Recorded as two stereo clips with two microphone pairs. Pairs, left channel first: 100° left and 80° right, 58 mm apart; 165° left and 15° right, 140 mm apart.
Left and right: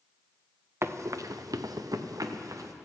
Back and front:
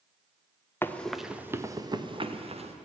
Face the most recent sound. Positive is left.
turn(degrees=-55)